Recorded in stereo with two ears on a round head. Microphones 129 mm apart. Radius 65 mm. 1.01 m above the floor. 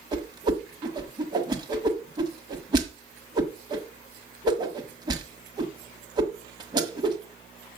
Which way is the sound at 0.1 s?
30° right (ahead or behind).